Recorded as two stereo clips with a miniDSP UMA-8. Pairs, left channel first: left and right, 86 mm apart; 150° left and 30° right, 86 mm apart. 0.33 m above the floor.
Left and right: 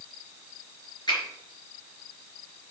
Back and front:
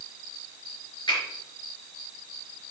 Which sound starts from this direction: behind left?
A finger snap, at 1.1 s.